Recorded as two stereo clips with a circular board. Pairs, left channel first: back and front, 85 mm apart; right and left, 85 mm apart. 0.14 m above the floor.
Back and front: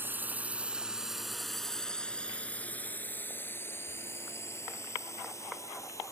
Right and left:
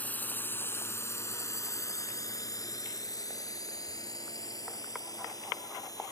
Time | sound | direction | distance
0.0 | a drone | 40° right | ?